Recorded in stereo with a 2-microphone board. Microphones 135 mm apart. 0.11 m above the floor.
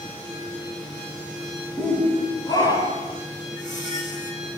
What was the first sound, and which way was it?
A shout, 10° left (ahead or behind).